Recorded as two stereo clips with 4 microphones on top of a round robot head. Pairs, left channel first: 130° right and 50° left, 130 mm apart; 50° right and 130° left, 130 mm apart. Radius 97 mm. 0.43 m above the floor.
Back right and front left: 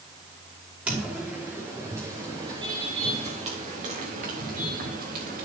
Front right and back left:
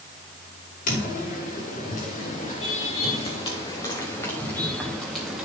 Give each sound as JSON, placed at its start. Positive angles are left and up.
{"t": 0.9, "sound": "footsteps", "azimuth_deg": -30, "distance_m": 5.5}